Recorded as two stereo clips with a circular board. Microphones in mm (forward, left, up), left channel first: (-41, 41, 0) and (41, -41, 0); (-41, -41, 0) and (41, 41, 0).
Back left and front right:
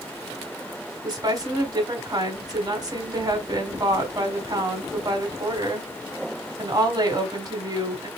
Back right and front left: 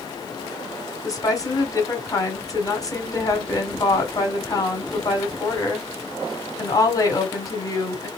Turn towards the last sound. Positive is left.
turn(degrees=-85)